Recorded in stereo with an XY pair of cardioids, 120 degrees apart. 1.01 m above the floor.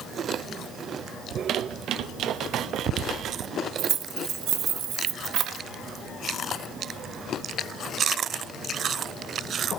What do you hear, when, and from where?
1.3 s a squeak: 65° right, 0.5 m
3.8 s keys jangling: 65° right, 0.9 m